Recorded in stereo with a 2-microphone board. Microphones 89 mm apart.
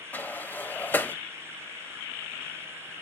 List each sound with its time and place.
0.1 s a sliding door: 25° left (ahead or behind), 0.7 m